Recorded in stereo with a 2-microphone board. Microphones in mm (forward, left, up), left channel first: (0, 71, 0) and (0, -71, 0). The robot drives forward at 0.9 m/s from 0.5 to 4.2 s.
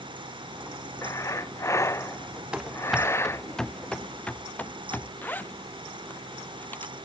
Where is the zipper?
15° left (ahead or behind).